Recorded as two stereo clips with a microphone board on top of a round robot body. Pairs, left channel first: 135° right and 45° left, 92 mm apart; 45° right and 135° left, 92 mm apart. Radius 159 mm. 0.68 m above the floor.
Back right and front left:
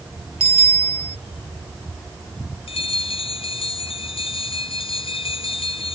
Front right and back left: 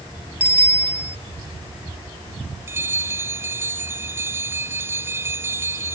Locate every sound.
0.4 s a bicycle bell: 60° left
2.7 s a bell: 160° right